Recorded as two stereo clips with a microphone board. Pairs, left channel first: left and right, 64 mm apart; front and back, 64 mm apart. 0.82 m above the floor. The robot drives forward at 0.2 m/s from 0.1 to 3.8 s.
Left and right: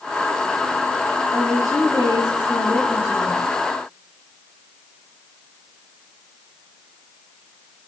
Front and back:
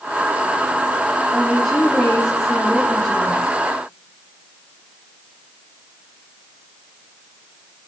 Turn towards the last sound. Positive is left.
turn(degrees=95)